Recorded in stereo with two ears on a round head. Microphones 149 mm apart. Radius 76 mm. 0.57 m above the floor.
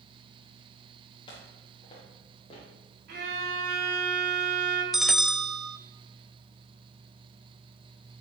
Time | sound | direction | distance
1.3 | footsteps | 30° left (ahead or behind) | 4 m
3.1 | a violin | 75° right (ahead or behind) | 5 m
4.9 | a bell | centre (ahead or behind) | 0.6 m